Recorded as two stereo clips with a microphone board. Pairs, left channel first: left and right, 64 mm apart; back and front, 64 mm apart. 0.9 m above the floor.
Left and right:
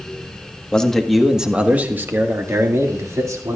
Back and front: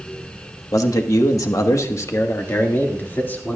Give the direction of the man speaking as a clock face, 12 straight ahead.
7 o'clock.